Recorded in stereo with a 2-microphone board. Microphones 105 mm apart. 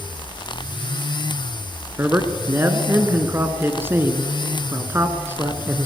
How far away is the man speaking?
About 1.5 m.